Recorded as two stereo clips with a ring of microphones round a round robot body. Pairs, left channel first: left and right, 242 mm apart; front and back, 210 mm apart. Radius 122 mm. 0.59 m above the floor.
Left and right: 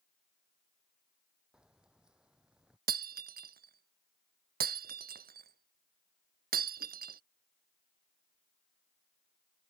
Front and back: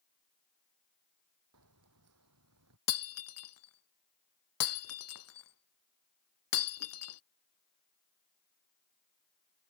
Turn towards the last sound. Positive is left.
turn(degrees=-35)